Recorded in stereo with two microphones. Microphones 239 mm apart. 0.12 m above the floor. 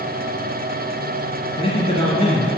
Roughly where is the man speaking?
Left.